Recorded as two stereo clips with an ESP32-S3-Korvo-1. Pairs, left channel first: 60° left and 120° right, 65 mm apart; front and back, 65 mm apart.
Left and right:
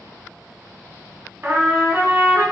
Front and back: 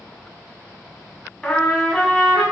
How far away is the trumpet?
About 0.8 m.